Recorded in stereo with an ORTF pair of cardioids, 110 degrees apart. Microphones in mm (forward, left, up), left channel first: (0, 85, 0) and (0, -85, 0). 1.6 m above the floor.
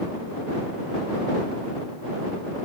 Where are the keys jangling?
I don't hear keys jangling.